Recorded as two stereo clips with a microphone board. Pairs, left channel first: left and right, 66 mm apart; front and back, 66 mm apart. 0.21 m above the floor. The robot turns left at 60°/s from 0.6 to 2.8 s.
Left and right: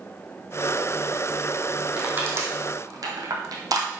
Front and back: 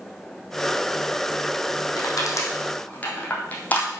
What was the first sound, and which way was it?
Crushing, 20° right.